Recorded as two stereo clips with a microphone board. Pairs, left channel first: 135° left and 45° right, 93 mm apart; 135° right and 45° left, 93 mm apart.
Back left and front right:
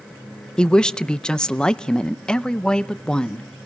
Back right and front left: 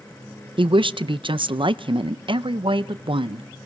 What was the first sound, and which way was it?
A woman speaking, 55° left.